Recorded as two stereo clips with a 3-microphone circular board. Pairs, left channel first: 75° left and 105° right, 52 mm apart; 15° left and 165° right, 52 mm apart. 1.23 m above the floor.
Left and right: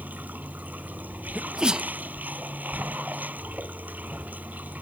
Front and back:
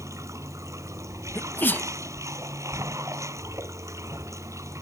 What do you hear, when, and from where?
0.0 s running water: 160° right
1.4 s a sneeze: 30° right